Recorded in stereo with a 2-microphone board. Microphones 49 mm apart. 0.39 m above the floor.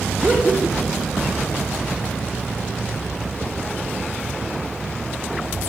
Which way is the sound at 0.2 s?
10° right (ahead or behind).